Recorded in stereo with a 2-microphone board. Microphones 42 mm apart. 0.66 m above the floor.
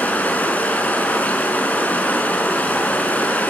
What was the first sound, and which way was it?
Running water, 40° left (ahead or behind).